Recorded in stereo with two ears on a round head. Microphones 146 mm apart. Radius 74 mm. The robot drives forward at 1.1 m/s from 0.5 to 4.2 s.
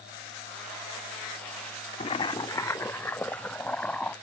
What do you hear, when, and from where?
2.0 s boiling: 35° left (ahead or behind); by 4.1 s 5° left (ahead or behind)